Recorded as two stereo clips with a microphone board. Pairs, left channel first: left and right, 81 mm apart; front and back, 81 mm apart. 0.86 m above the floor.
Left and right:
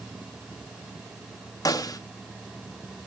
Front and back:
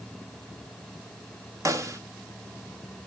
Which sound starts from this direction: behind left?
A snare drum, at 1.6 s.